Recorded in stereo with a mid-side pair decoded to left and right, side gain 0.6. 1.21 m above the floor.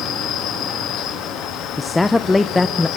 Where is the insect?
65° left, 2 m.